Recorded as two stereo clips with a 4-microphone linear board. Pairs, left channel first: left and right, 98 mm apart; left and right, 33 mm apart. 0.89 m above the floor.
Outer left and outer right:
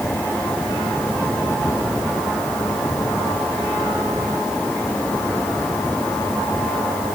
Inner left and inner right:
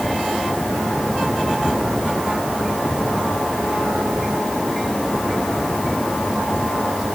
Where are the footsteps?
I don't hear footsteps.